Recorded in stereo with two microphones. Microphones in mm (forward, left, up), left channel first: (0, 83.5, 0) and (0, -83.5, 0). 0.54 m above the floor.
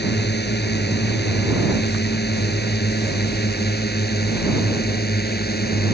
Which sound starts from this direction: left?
A drone, at 0.0 s.